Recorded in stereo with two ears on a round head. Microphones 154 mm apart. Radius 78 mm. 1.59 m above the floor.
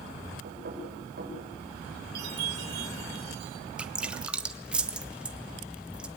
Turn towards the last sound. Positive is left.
turn(degrees=-5)  # may be behind; listen again after turning